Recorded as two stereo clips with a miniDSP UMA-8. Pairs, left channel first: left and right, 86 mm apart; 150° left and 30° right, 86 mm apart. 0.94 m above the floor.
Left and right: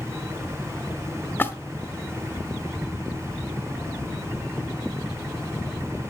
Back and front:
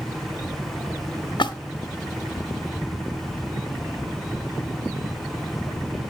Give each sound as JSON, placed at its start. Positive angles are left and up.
{"t": 1.4, "sound": "a splash", "azimuth_deg": 155, "distance_m": 0.9}